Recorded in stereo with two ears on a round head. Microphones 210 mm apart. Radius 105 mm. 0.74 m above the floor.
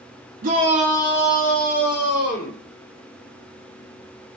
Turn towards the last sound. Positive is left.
turn(degrees=50)  # may be behind; listen again after turning